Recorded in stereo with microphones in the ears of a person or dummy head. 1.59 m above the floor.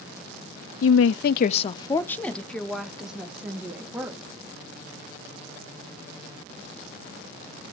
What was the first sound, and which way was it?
A woman speaking, 80° left.